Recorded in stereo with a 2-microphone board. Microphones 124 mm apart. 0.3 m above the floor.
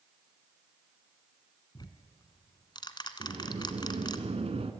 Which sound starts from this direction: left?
Ticking, at 1.8 s.